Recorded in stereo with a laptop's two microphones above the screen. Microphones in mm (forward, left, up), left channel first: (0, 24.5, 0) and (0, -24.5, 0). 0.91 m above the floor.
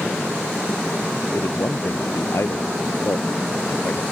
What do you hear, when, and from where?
1.3 s a man speaking: 70° left (ahead or behind); by 4.0 s 65° left (ahead or behind)